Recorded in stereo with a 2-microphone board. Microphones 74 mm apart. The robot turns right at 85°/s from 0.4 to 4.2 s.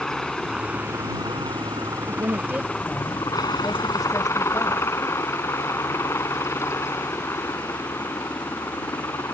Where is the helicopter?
175° left; by 9.3 s 135° left.